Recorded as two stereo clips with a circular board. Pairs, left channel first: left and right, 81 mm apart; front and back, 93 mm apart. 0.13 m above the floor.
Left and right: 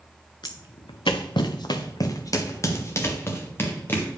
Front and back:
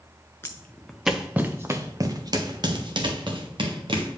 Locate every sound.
0.4 s footsteps: 65° left, 0.9 m; by 4.1 s 155° left, 2.5 m